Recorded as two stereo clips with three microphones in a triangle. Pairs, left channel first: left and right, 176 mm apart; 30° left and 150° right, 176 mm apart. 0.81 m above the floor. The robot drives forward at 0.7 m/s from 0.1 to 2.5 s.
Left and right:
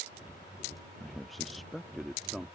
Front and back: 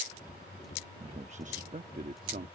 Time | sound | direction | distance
1.0 | a man speaking | straight behind | ?